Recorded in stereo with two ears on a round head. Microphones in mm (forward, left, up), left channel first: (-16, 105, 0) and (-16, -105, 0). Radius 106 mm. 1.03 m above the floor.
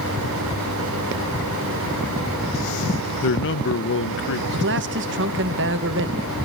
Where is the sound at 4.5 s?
50° right (ahead or behind), 1.2 m.